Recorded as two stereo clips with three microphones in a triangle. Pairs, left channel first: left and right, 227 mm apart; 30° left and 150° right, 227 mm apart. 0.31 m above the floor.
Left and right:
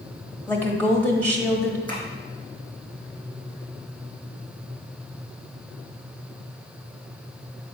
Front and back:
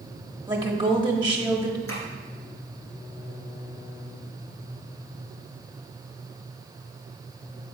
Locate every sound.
0.5 s a woman speaking: 165° left, 1.2 m
1.9 s tapping: 20° left, 2.5 m